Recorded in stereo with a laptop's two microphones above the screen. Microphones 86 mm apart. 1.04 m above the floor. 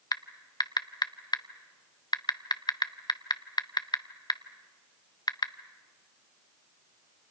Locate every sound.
0.1 s typing on a keyboard: 55° left (ahead or behind), 0.6 m